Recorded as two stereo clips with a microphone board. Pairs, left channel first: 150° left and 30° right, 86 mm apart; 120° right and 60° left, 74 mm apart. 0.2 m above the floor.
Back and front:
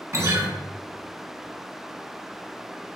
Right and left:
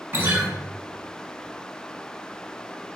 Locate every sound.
0.1 s a guitar: 15° left, 1.3 m